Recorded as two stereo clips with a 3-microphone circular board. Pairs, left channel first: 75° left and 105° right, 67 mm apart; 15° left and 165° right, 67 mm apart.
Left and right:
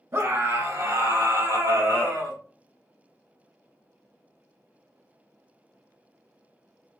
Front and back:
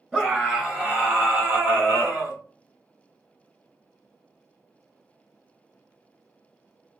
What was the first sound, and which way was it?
A scream, 90° right.